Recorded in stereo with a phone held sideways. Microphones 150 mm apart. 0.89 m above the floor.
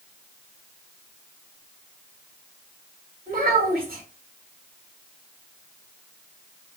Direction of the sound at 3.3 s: 70° right (ahead or behind).